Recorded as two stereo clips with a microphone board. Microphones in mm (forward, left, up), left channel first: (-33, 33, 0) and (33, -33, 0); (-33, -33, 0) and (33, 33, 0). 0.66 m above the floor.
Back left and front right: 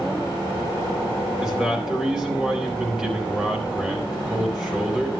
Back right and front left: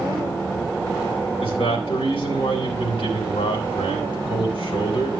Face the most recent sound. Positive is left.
turn(degrees=-125)